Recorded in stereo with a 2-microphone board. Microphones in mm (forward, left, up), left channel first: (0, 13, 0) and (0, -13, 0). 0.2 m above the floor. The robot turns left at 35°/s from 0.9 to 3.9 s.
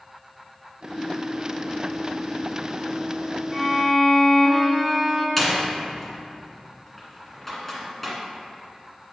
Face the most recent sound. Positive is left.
turn(degrees=5)  # may be behind; listen again after turning